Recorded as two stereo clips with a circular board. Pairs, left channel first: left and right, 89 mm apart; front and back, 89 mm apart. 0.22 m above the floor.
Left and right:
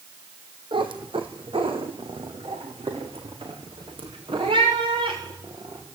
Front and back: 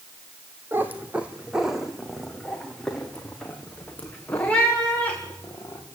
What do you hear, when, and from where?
0.7 s a cat meowing: 110° right, 2 m; by 5.8 s 70° right, 6 m